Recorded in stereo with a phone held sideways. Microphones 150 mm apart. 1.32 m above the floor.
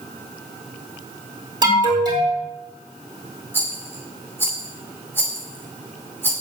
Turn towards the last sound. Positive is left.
turn(degrees=15)  # may be behind; listen again after turning